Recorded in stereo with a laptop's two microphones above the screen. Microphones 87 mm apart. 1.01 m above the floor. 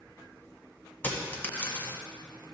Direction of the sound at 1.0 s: 20° left (ahead or behind).